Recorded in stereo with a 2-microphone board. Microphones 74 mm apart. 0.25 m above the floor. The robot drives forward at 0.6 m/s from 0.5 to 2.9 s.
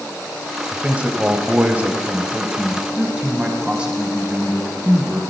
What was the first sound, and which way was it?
A man speaking, 20° right (ahead or behind).